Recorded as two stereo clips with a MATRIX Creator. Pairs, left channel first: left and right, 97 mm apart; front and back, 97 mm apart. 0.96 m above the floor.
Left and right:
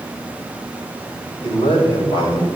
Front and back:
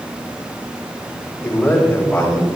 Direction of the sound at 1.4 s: 75° left.